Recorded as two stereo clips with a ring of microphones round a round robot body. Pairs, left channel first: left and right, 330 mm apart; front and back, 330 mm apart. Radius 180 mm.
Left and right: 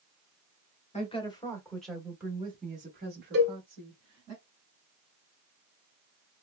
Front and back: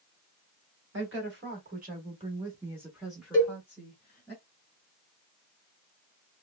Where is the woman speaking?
150° left, 1.4 m; by 4.3 s 70° right, 1.6 m.